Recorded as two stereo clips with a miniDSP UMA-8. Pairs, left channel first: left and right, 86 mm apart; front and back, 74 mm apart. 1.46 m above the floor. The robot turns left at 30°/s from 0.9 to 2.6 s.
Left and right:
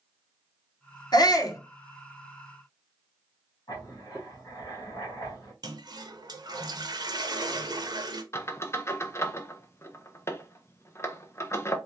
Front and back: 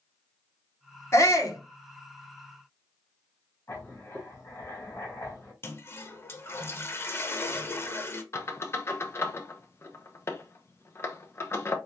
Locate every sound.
1.1 s a shout: 50° left, 1.0 m; by 1.6 s 35° left, 1.0 m
3.7 s writing: 45° left, 2 m
5.6 s a toilet flushing: 55° right, 0.7 m
8.3 s a squeak: 40° left, 0.6 m